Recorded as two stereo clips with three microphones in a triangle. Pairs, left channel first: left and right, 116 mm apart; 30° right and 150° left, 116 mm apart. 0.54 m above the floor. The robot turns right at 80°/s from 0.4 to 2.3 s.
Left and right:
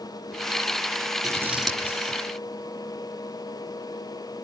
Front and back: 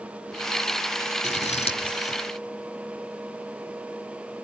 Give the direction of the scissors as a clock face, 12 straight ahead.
1 o'clock.